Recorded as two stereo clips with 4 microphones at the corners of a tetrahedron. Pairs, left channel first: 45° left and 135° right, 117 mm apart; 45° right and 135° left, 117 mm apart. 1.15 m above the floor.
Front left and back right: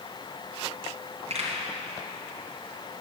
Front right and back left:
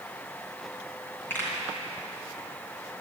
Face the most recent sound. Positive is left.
turn(degrees=-120)